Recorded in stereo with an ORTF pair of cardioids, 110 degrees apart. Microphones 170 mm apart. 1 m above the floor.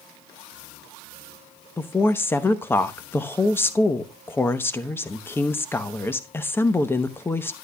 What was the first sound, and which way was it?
A woman speaking, 15° left.